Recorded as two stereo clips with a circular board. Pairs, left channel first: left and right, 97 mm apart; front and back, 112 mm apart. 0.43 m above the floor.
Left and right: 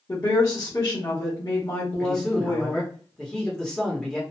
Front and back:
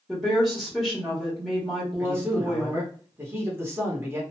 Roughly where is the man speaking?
Behind.